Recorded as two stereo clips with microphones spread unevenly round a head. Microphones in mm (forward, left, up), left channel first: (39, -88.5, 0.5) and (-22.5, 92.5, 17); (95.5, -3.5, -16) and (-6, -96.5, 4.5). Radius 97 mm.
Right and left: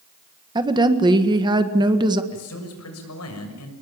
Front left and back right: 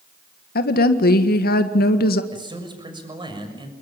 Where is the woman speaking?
40° left, 1.7 m.